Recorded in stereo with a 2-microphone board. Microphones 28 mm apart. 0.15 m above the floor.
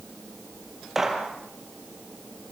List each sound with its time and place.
0.9 s a gunshot: 10° right (ahead or behind), 4.5 m